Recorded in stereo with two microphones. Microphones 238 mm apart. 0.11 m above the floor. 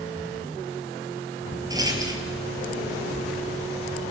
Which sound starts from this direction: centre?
A rattle, at 1.7 s.